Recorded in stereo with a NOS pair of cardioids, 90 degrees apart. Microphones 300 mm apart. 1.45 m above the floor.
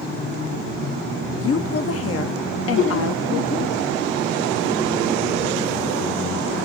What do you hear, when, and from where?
1.4 s a woman speaking: 50° left, 0.8 m
2.8 s laughter: 40° left, 1.5 m